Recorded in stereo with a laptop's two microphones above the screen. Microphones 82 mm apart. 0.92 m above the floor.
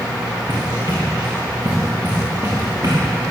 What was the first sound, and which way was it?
Running footsteps, 75° right (ahead or behind).